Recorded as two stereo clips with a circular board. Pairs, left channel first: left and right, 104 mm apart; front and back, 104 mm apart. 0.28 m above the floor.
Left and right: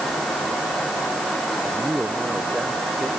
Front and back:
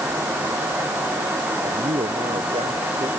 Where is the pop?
I don't hear a pop.